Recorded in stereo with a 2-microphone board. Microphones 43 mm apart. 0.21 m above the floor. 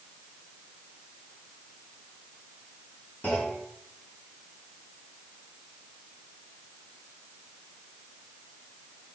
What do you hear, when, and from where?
3.2 s a clunk: 35° left (ahead or behind), 3.5 m